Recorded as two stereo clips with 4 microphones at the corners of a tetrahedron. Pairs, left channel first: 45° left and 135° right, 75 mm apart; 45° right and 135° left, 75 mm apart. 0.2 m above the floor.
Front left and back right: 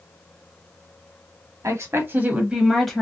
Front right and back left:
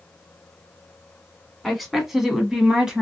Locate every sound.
1.6 s a woman speaking: 135° right, 1.4 m; by 3.0 s 95° left, 1.1 m